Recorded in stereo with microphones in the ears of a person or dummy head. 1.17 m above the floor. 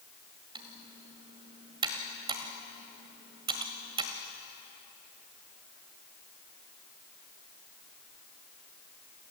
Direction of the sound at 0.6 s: 30° right (ahead or behind).